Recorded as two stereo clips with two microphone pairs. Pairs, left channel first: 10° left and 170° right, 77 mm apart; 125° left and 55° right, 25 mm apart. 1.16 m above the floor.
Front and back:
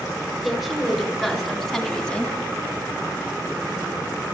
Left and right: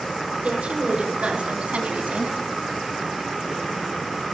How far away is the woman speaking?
About 4.5 m.